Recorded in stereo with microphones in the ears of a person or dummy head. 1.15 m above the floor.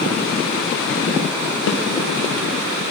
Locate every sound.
1.7 s a snare drum: 65° left (ahead or behind), 1.0 m